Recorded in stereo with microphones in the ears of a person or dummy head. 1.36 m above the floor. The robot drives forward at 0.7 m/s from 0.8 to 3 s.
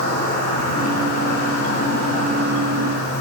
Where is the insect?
60° left (ahead or behind), 7.5 m; by 3.2 s 50° left (ahead or behind), 8.5 m.